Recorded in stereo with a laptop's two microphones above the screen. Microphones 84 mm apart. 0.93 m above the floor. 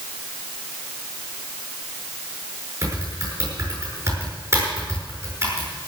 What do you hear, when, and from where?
2.8 s typing on a keyboard: 35° right (ahead or behind), 7 m